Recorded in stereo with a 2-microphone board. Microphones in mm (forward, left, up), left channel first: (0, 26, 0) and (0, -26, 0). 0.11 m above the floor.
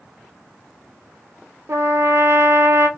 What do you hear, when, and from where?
1.7 s a trumpet: 60° right (ahead or behind), 0.5 m